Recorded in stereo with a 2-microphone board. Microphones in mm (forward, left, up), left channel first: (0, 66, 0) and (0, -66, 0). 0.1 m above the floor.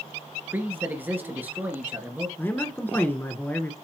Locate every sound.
0.5 s a man speaking: 15° right (ahead or behind), 1.6 m
2.4 s a man speaking: 15° left (ahead or behind), 1.1 m